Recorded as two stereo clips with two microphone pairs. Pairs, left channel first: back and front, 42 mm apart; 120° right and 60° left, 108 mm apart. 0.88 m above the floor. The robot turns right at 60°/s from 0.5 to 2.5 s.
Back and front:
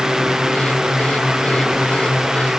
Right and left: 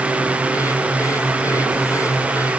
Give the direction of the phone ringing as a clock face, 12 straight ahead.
No phone ringing in this recording.